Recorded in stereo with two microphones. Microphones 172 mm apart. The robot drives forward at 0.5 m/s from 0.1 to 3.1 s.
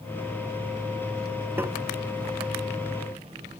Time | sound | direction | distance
1.6 | tapping | 15° right (ahead or behind) | ?